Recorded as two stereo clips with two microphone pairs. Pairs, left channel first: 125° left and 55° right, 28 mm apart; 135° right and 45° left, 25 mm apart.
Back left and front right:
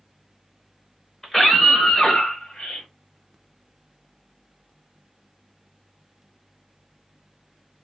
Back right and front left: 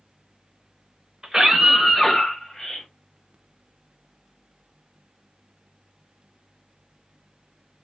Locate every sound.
1.2 s a scream: 65° left, 0.9 m; by 2.9 s 165° left, 1.4 m